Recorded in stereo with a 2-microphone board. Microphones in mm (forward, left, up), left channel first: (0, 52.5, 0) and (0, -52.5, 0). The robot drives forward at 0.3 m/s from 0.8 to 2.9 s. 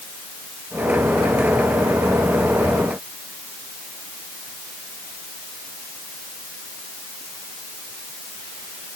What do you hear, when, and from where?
Only background noise.